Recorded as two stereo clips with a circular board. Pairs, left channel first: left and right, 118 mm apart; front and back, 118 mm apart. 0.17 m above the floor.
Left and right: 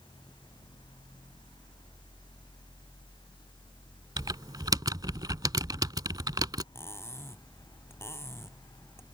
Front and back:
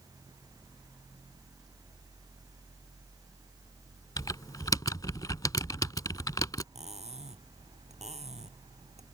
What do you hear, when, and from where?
4.2 s typing on a keyboard: 45° right
6.8 s cutlery clinking: 160° left